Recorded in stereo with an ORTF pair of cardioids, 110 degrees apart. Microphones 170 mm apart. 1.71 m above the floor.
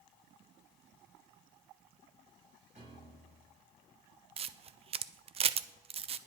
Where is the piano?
45° right, 7.5 m.